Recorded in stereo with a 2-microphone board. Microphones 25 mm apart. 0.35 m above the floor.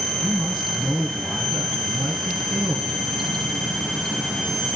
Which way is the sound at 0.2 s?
55° right (ahead or behind).